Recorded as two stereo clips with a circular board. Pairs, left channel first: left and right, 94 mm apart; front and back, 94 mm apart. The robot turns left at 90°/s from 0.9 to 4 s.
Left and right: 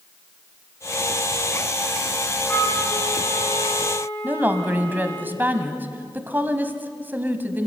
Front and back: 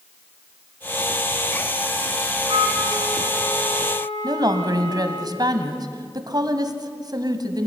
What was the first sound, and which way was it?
A flute, 155° left.